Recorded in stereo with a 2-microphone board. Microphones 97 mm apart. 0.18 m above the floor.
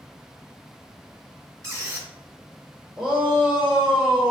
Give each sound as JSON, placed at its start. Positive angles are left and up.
{"t": 1.6, "sound": "a squeak", "side_deg": -30, "distance_m": 1.1}
{"t": 3.0, "sound": "a shout", "side_deg": -5, "distance_m": 1.8}